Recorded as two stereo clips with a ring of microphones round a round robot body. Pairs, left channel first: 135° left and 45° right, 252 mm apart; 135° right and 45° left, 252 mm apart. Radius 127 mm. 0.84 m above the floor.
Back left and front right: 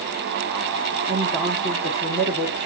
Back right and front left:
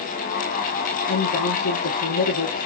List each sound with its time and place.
1.1 s a woman speaking: 115° right, 1.7 m